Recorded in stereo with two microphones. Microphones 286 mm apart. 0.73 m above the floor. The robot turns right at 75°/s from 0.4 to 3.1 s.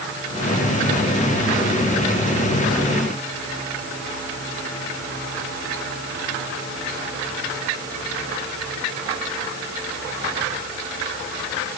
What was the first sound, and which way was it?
Only background noise.